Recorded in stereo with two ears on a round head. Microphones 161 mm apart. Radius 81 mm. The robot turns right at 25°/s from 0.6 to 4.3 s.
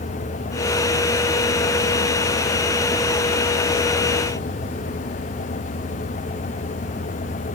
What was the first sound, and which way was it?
Only background noise.